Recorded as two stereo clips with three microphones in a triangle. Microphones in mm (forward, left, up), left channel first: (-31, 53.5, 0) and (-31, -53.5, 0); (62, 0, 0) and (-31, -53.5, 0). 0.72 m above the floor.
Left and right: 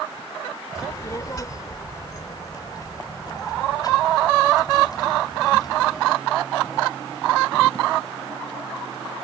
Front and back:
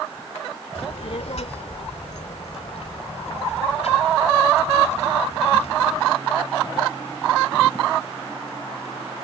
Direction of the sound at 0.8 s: 35° left.